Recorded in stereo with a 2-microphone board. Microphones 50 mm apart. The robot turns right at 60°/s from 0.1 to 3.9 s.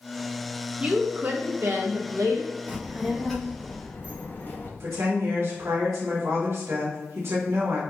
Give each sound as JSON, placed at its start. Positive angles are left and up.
{"t": 0.8, "sound": "a woman speaking", "azimuth_deg": -165, "distance_m": 1.2}
{"t": 2.7, "sound": "a child speaking", "azimuth_deg": -30, "distance_m": 1.3}
{"t": 4.8, "sound": "a woman speaking", "side_deg": -60, "distance_m": 1.7}